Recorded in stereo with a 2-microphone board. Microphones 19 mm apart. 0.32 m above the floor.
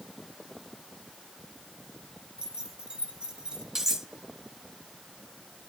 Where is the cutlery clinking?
20° right (ahead or behind), 3.5 m.